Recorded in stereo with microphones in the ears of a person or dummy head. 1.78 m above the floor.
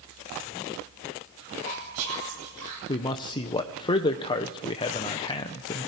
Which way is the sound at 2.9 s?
25° left (ahead or behind).